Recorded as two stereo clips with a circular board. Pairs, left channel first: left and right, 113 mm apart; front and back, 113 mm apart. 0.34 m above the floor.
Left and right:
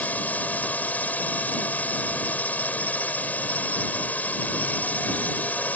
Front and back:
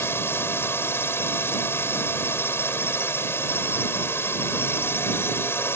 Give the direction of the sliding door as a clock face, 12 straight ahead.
I don't hear a sliding door.